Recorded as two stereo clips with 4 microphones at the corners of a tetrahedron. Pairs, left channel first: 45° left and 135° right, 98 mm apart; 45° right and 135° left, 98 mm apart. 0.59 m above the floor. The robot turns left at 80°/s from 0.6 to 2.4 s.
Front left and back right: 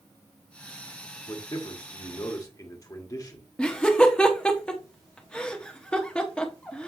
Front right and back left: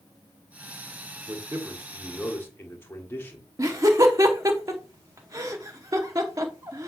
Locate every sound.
1.3 s a man speaking: 105° left, 1.5 m; by 3.5 s 15° left, 1.5 m
3.6 s laughter: 120° left, 0.9 m